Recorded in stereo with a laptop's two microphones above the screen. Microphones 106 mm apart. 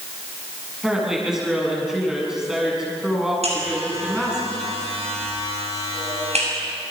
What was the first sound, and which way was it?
A woman speaking, 5° right (ahead or behind).